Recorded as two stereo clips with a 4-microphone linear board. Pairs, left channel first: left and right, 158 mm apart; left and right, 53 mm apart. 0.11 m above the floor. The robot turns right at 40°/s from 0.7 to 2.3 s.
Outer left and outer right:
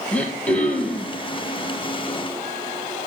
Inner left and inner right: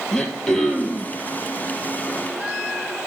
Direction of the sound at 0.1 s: 10° left (ahead or behind).